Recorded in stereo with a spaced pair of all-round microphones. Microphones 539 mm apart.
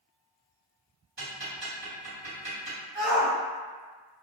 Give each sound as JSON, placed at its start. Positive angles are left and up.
{"t": 1.2, "sound": "ticking", "side_deg": -50, "distance_m": 1.7}
{"t": 3.0, "sound": "a shout", "side_deg": -80, "distance_m": 1.8}